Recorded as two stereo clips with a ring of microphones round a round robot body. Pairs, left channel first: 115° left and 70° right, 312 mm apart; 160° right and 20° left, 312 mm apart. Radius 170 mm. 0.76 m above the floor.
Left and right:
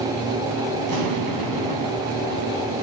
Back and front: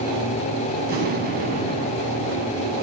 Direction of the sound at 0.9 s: 40° right.